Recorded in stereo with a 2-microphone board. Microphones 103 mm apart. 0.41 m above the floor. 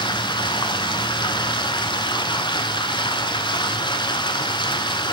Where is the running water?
50° left (ahead or behind), 0.9 m.